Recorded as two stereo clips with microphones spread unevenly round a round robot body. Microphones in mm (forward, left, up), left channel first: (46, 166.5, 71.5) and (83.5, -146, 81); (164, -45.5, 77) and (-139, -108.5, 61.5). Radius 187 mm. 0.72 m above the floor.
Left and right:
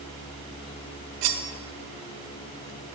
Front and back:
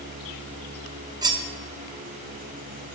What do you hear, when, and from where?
1.2 s cutlery clinking: 90° right, 0.6 m